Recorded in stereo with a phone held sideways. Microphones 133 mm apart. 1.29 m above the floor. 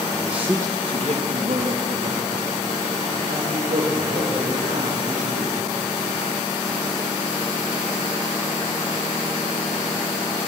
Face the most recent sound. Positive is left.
turn(degrees=-85)